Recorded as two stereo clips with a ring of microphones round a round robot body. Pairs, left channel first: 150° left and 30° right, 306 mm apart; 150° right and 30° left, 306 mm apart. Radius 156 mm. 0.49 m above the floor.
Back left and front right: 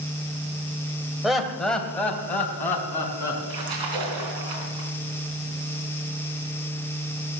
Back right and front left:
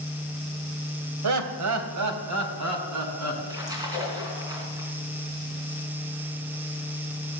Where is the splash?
50° right, 3 m.